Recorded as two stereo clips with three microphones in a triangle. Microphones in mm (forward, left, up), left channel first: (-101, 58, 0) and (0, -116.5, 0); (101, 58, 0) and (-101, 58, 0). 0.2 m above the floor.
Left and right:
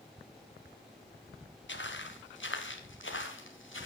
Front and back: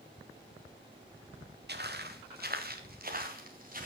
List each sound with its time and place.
1.7 s footsteps: 145° left, 2 m; by 3.9 s 135° left, 3 m